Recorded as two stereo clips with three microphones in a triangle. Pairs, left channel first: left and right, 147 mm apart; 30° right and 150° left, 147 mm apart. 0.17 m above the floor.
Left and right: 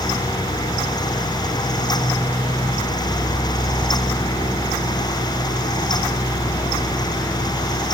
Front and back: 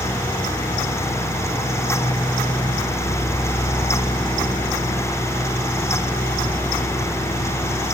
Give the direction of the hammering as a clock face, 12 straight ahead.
I don't hear hammering.